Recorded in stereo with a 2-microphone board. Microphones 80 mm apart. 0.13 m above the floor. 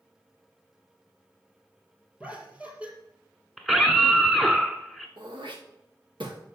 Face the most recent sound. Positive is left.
turn(degrees=-90)